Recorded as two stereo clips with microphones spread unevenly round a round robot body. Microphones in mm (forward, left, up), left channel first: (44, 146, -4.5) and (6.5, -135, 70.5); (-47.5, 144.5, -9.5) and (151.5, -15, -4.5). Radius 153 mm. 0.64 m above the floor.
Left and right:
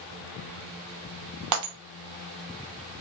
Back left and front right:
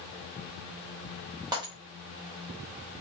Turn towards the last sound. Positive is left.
turn(degrees=-115)